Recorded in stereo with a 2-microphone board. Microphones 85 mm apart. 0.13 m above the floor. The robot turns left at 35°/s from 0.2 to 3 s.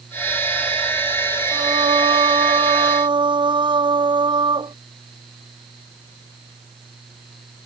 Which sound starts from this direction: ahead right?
Singing, at 1.5 s.